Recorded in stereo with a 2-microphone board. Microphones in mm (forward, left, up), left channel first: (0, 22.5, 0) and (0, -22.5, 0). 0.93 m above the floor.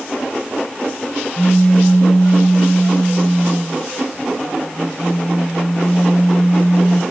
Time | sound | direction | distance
1.4 | a pop | 45° left (ahead or behind) | 1.7 m